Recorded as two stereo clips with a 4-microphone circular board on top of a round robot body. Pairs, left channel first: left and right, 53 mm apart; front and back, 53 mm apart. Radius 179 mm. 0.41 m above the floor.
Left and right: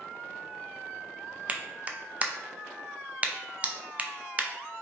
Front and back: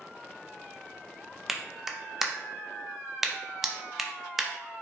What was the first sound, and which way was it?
A clap, 105° right.